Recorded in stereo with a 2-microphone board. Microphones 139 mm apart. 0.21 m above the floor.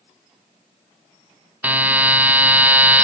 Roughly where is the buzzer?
Centre.